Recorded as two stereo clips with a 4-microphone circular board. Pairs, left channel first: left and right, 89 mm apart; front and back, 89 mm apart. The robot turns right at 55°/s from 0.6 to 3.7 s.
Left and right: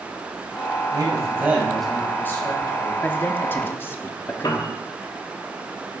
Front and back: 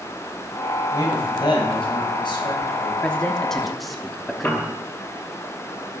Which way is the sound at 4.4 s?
65° left.